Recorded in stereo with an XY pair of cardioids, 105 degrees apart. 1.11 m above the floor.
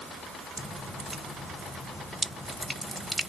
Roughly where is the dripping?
Ahead.